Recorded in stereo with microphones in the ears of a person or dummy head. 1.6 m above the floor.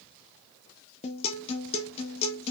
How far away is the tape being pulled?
I don't hear tape being pulled.